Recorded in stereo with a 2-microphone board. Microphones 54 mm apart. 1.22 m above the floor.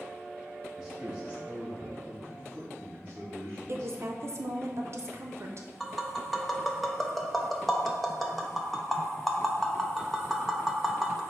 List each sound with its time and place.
0.8 s a man speaking: 10° right (ahead or behind), 1.7 m; by 4.0 s 40° right (ahead or behind), 3 m
3.7 s a woman speaking: 55° right (ahead or behind), 0.6 m
5.8 s tapping: centre (ahead or behind), 0.5 m